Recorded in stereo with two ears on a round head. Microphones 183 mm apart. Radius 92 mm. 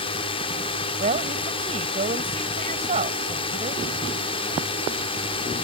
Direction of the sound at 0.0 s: 25° left (ahead or behind).